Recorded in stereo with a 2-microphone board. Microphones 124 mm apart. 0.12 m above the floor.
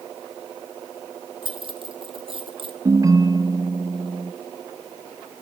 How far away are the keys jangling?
About 2.5 m.